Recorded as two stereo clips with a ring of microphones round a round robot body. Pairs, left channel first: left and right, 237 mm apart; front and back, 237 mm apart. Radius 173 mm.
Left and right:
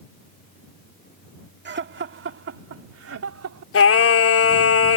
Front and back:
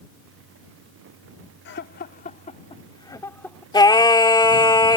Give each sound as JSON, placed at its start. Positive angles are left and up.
{"t": 1.6, "sound": "laughter", "azimuth_deg": -50}
{"t": 3.7, "sound": "singing", "azimuth_deg": 70}